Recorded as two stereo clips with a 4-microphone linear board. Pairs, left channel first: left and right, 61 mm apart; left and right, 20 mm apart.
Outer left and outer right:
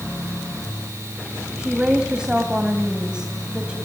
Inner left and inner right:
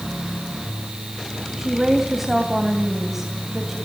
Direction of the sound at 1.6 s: 15° right (ahead or behind).